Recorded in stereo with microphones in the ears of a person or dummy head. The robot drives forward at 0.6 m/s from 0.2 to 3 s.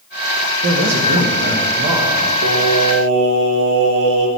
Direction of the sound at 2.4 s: 55° right (ahead or behind).